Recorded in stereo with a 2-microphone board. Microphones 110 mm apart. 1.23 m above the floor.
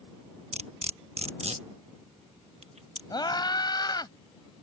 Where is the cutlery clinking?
70° right (ahead or behind).